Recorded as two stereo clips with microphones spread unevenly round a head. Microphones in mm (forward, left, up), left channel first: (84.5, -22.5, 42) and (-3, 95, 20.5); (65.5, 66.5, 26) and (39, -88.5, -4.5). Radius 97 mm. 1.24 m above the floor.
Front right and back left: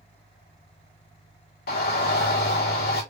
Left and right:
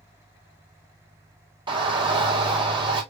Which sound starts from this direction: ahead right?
A shout, at 1.7 s.